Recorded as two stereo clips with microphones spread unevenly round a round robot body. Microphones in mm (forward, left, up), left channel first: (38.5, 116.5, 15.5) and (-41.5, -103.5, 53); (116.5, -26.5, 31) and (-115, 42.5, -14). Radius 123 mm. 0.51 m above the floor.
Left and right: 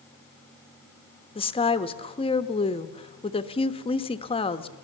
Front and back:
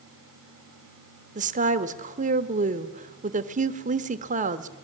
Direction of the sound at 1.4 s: 125° left.